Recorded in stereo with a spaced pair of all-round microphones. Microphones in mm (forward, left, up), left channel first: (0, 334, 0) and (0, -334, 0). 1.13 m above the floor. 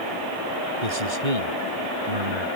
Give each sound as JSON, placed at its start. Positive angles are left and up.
{"t": 0.8, "sound": "a man speaking", "side_deg": -80}